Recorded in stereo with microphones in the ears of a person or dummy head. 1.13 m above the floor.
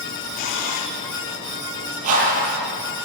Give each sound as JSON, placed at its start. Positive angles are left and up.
{"t": 0.4, "sound": "a camera shutter", "side_deg": 60, "distance_m": 2.5}
{"t": 2.0, "sound": "a whoosh", "side_deg": -45, "distance_m": 8.0}